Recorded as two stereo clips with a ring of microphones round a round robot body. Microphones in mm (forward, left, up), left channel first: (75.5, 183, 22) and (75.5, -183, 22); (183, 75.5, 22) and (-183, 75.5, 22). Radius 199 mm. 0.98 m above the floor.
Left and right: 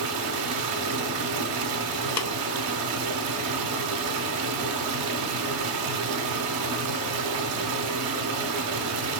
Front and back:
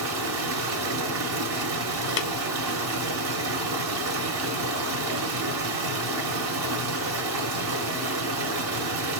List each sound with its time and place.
0.0 s running water: 130° right, 0.8 m
2.2 s tapping: 40° left, 1.0 m